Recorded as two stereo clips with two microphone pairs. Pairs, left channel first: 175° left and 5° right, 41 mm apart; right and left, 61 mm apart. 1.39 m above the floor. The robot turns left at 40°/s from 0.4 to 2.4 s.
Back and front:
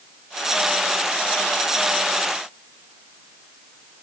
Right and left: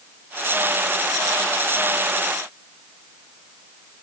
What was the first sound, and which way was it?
Only background noise.